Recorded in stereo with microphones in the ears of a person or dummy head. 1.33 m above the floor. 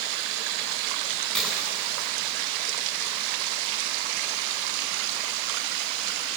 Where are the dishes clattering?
5° left (ahead or behind), 8 m.